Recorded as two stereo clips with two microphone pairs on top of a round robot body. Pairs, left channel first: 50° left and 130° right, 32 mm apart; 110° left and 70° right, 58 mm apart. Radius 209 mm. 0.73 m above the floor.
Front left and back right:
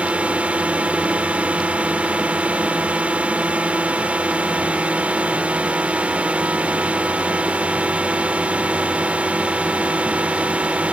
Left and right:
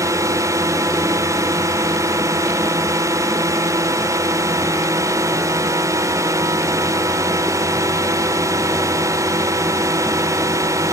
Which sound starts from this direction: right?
A drone, at 0.0 s.